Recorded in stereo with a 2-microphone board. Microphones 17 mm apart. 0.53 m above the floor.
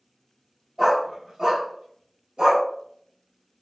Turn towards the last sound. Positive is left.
turn(degrees=-80)